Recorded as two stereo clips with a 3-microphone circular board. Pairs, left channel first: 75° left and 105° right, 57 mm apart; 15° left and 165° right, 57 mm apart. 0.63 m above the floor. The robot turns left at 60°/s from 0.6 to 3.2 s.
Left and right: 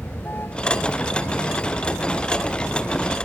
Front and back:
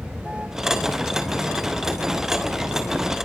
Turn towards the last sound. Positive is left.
turn(degrees=-30)